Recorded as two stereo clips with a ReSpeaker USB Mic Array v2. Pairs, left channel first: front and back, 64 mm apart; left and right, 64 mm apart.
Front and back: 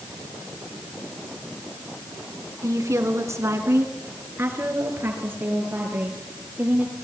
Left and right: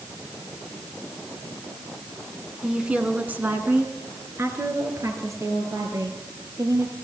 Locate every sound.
2.6 s a woman speaking: 170° right, 3 m; by 6.9 s 120° right, 7.5 m